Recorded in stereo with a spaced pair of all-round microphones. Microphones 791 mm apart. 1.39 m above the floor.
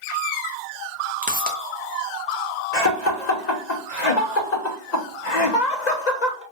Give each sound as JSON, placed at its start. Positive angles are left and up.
{"t": 1.2, "sound": "a pop", "side_deg": -10, "distance_m": 0.6}
{"t": 2.7, "sound": "laughter", "side_deg": 60, "distance_m": 0.9}